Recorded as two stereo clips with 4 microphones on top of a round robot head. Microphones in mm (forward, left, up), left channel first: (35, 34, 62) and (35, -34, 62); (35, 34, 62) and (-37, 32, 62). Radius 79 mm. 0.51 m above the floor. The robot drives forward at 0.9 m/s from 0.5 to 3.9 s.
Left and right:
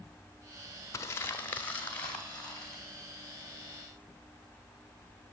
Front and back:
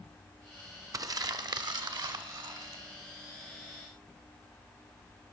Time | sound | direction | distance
0.9 | crumpling | 140° left | 0.7 m